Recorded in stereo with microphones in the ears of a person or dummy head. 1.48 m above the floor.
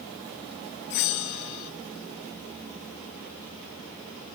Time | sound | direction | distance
0.9 | a bell | 50° left (ahead or behind) | 0.8 m